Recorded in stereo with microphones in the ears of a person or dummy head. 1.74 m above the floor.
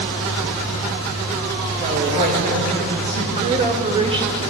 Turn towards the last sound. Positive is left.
turn(degrees=-20)  # may be behind; listen again after turning